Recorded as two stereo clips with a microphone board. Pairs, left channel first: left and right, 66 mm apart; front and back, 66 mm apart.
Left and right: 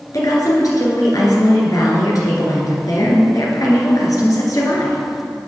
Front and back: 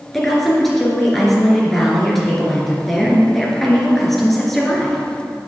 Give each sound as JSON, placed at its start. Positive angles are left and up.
{"t": 0.1, "sound": "a woman speaking", "azimuth_deg": 85, "distance_m": 2.0}